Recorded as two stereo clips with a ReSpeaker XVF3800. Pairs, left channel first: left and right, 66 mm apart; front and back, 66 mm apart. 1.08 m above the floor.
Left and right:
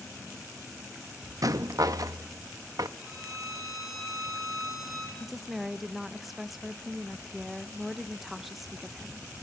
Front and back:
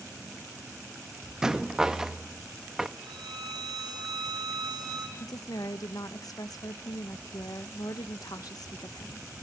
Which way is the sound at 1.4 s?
100° right.